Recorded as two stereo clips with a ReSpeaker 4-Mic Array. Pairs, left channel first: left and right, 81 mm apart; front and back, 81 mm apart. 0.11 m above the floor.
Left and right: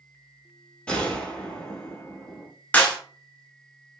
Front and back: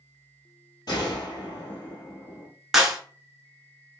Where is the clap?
105° left, 0.9 m.